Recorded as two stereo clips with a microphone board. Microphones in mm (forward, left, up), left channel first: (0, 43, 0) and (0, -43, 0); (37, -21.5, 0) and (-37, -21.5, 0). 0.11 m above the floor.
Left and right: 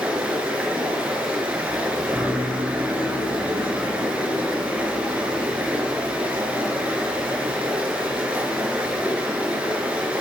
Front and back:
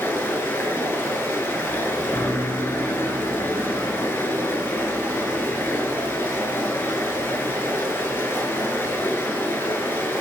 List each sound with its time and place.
0.0 s running water: 25° right, 1.2 m